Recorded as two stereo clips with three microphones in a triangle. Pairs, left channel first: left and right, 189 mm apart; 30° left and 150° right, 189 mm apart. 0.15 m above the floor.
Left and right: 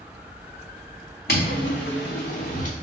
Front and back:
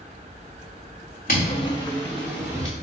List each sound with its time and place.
1.3 s footsteps: 65° left, 0.8 m; by 2.7 s 140° left, 1.2 m